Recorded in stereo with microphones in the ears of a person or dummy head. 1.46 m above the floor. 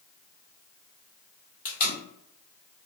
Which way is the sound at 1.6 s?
35° left (ahead or behind).